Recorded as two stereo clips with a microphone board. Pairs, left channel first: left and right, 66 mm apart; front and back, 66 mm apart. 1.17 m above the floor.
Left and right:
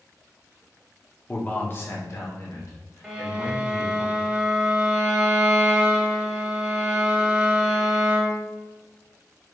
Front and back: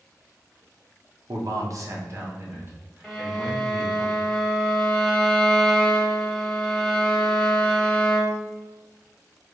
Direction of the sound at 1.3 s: 160° left.